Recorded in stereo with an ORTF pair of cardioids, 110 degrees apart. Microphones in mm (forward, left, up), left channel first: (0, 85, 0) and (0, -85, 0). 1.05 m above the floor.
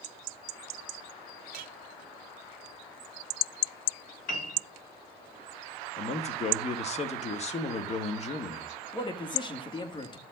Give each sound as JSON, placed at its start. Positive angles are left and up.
{"t": 1.5, "sound": "a clink", "azimuth_deg": -65, "distance_m": 1.2}
{"t": 4.3, "sound": "a piano", "azimuth_deg": 55, "distance_m": 4.0}
{"t": 6.0, "sound": "a man speaking", "azimuth_deg": 40, "distance_m": 1.5}
{"t": 8.9, "sound": "a man speaking", "azimuth_deg": 30, "distance_m": 1.9}